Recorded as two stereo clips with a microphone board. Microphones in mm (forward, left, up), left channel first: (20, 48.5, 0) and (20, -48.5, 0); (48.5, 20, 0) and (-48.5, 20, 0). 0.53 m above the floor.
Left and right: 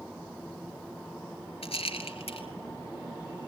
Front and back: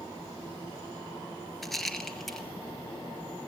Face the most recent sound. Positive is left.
turn(degrees=85)